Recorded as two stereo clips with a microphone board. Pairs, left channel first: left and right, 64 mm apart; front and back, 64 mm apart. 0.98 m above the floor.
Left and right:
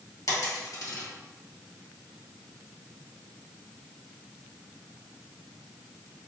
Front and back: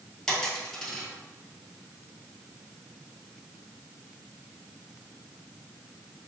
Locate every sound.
0.3 s a dropped coin: 80° left, 1.7 m